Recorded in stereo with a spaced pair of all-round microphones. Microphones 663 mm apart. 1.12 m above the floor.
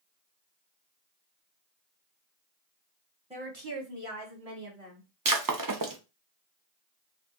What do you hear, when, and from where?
3.3 s a woman speaking: 10° right (ahead or behind), 0.8 m; by 5.1 s 70° right (ahead or behind), 2.5 m
5.2 s breaking glass: 35° right (ahead or behind), 0.5 m